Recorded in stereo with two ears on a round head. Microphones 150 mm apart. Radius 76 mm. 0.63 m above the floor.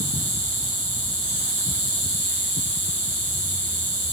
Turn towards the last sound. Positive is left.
turn(degrees=-75)  # may be behind; listen again after turning